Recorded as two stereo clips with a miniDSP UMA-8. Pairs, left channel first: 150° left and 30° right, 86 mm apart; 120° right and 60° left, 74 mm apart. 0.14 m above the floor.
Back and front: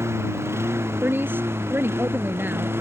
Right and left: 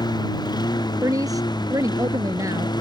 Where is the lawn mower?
90° right; by 2.8 s 95° right.